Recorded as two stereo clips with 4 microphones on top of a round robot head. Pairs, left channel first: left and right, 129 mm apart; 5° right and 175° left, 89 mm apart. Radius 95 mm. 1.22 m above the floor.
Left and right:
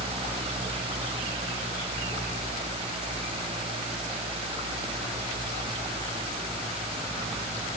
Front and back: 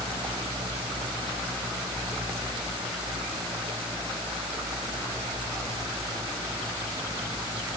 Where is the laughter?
No laughter in this recording.